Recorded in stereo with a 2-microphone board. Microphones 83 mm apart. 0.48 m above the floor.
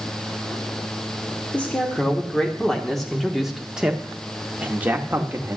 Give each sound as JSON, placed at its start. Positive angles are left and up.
{"t": 1.5, "sound": "a man speaking", "side_deg": 15, "distance_m": 1.7}